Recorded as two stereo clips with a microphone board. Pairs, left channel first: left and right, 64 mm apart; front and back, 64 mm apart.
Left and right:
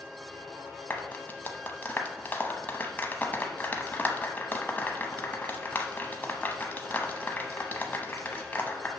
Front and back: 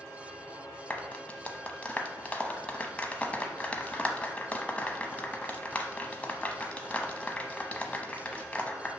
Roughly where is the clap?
Ahead left.